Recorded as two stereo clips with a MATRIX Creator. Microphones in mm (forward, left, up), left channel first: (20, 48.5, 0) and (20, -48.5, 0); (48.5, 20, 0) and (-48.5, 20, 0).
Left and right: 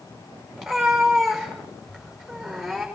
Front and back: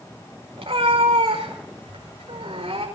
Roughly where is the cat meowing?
Behind.